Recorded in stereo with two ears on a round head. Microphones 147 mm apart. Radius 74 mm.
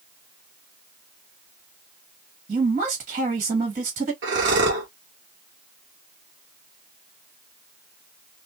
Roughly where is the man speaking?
Right.